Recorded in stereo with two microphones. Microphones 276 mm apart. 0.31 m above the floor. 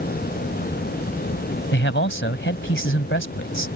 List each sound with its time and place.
1.7 s a man speaking: 45° left (ahead or behind)